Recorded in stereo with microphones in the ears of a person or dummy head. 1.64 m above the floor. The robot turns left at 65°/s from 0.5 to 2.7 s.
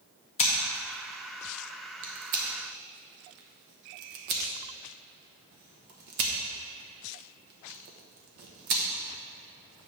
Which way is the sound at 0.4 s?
35° left (ahead or behind).